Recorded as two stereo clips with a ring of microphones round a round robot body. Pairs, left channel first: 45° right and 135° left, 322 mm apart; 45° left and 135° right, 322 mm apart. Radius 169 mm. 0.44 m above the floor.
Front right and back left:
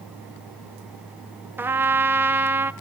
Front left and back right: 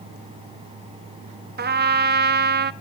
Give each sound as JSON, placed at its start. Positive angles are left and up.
{"t": 1.6, "sound": "a trumpet", "azimuth_deg": -150, "distance_m": 0.7}